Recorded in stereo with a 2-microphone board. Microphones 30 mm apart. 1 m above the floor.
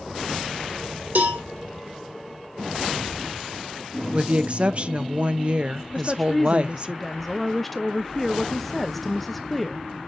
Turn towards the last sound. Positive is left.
turn(degrees=5)  # may be behind; listen again after turning